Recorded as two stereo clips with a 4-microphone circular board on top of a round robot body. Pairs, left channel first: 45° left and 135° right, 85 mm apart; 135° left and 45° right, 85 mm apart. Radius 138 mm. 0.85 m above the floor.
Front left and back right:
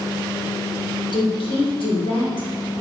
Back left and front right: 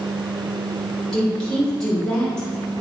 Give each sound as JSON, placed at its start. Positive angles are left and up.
{"t": 1.1, "sound": "a woman speaking", "azimuth_deg": 50, "distance_m": 3.0}